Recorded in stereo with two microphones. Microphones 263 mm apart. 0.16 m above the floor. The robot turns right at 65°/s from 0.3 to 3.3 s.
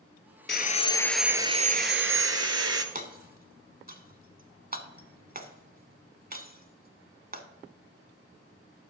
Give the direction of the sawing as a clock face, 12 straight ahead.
7 o'clock.